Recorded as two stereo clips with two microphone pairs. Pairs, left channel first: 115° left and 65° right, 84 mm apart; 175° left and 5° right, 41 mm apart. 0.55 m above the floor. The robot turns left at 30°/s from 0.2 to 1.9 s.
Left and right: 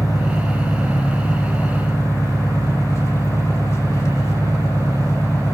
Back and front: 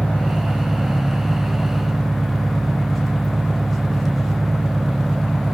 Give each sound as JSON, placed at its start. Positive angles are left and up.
{"t": 0.0, "sound": "an engine running", "azimuth_deg": 130, "distance_m": 1.1}